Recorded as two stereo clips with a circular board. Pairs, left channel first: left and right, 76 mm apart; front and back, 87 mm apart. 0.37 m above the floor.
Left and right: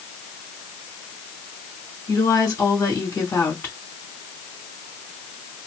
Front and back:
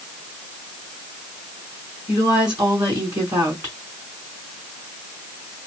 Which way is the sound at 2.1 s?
145° left.